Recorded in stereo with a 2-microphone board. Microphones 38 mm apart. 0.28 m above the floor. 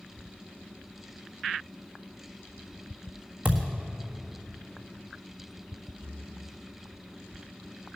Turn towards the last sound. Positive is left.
turn(degrees=40)  # may be behind; listen again after turning